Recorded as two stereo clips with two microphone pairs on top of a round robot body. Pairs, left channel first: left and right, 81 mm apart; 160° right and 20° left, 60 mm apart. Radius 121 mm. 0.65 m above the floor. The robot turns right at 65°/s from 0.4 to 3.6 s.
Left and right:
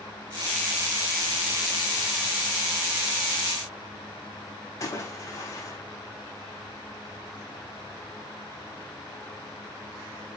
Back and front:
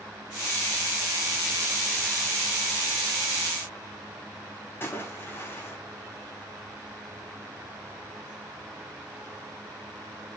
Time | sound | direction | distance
4.8 | a splash | 145° left | 5 m